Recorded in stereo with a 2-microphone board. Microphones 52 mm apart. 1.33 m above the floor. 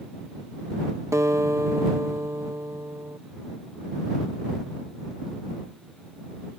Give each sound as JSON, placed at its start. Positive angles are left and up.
{"t": 1.1, "sound": "a guitar", "side_deg": -70}